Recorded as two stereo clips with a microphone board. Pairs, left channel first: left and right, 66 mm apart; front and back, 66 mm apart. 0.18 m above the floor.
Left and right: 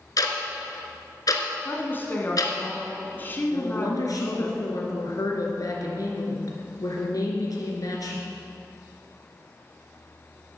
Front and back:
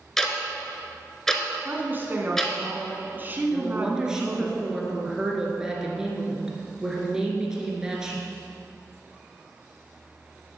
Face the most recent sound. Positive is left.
turn(degrees=100)